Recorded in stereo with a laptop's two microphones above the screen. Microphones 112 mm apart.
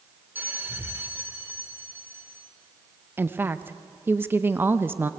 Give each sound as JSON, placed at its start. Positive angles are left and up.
{"t": 0.3, "sound": "a bell", "side_deg": -20, "distance_m": 2.0}
{"t": 3.2, "sound": "a woman speaking", "side_deg": -20, "distance_m": 0.7}